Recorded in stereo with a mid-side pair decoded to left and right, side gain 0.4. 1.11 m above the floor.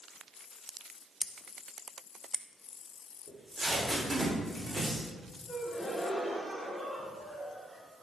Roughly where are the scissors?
Ahead.